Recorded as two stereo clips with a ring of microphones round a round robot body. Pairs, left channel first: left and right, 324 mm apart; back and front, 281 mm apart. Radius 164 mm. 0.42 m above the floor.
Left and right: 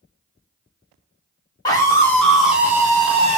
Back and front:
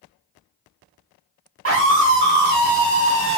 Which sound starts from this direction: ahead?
A scream, at 1.6 s.